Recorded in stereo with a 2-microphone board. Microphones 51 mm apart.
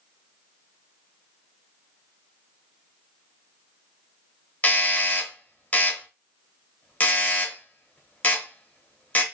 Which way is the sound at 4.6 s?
30° left (ahead or behind).